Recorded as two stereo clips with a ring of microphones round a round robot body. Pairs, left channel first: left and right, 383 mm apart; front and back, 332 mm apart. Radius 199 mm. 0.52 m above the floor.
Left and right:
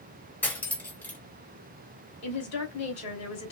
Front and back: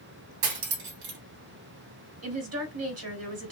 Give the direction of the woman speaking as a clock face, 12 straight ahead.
7 o'clock.